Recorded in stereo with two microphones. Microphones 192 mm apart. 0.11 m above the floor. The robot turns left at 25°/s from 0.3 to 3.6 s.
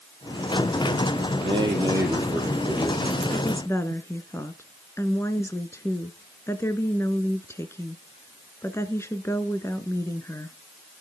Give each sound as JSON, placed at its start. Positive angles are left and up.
{"t": 1.4, "sound": "a man speaking", "azimuth_deg": -150, "distance_m": 5.0}
{"t": 3.3, "sound": "a woman speaking", "side_deg": 15, "distance_m": 1.4}